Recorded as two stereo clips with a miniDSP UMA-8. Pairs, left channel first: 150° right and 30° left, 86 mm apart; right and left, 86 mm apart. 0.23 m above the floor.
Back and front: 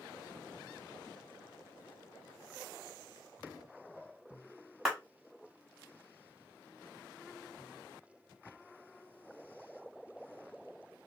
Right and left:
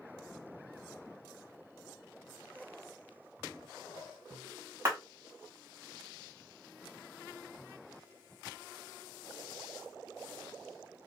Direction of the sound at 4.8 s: 110° left.